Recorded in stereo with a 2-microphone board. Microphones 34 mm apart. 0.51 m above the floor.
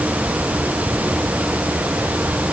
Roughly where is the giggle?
I don't hear a giggle.